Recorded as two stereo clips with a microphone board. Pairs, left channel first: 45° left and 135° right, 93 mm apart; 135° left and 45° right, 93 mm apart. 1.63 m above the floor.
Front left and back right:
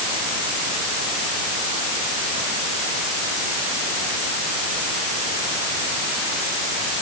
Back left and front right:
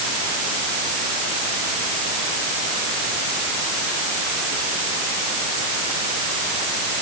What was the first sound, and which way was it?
Only background noise.